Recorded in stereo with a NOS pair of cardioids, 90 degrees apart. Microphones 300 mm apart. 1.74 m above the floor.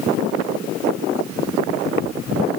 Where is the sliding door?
I don't hear a sliding door.